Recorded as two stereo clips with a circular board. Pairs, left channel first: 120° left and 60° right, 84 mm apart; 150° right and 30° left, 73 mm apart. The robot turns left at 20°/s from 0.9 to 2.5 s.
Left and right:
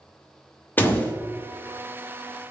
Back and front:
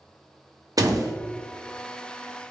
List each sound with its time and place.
0.8 s a door slam: 55° left, 0.7 m; by 1.1 s 50° left, 0.7 m